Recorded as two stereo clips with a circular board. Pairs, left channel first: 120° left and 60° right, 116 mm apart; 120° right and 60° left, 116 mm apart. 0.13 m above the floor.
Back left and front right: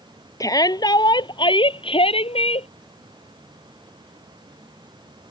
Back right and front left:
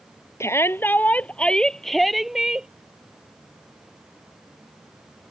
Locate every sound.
0.4 s a shout: 175° left; by 2.7 s 145° left